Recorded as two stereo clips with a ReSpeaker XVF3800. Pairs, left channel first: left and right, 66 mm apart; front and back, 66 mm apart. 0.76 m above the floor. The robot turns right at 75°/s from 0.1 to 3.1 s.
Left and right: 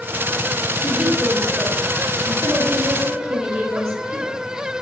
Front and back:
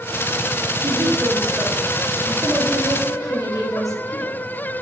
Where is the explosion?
I don't hear an explosion.